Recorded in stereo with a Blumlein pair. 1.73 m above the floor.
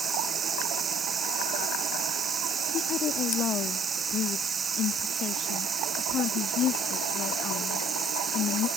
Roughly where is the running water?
Ahead.